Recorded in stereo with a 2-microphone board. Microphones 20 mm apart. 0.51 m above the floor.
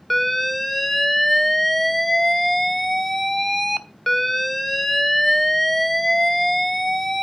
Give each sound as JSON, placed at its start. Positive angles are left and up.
{"t": 0.1, "sound": "an alarm", "side_deg": 0, "distance_m": 0.8}